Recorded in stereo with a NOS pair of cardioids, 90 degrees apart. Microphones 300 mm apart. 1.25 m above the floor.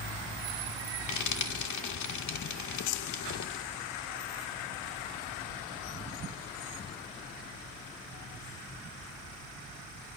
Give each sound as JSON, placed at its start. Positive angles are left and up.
{"t": 1.1, "sound": "frying", "azimuth_deg": 65, "distance_m": 1.8}